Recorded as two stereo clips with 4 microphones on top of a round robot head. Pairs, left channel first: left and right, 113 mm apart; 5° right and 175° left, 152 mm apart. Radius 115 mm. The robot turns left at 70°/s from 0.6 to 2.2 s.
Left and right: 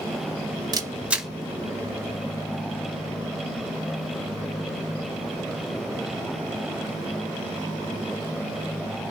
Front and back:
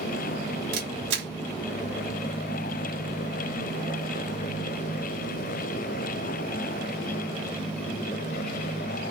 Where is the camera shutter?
145° right, 0.9 m; by 1.3 s straight behind, 0.9 m.